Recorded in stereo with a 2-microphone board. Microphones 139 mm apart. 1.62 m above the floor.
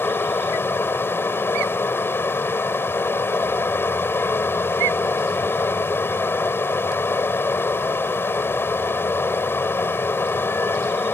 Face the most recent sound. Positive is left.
turn(degrees=15)  # may be behind; listen again after turning